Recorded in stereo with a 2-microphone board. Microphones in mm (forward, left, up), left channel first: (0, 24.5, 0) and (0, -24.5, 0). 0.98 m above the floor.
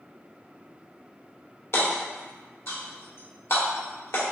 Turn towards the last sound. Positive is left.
turn(degrees=65)  # may be behind; listen again after turning